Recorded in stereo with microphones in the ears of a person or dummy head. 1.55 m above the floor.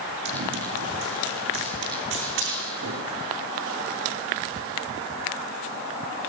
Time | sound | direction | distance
0.2 | running footsteps | 65° right (ahead or behind) | 6.5 m